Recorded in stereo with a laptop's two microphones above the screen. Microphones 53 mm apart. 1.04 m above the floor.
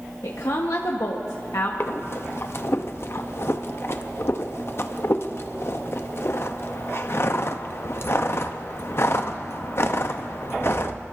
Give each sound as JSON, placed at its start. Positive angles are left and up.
{"t": 0.2, "sound": "a woman speaking", "side_deg": 80, "distance_m": 1.0}
{"t": 1.8, "sound": "breathing", "side_deg": 55, "distance_m": 0.6}